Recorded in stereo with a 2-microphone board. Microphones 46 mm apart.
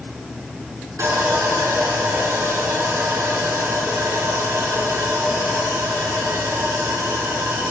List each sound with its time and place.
1.0 s sawing: 85° right, 5 m